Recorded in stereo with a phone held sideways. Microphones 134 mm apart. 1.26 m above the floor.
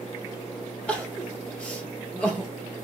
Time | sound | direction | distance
0.9 | crying | 10° left (ahead or behind) | 0.9 m